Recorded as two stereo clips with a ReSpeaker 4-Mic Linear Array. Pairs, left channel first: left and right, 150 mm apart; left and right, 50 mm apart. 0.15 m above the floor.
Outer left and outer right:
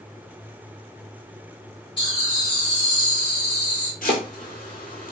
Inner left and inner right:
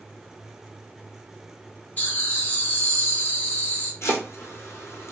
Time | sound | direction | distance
2.0 | laughter | 30° left (ahead or behind) | 1.8 m
4.0 | chopping | 70° left (ahead or behind) | 1.0 m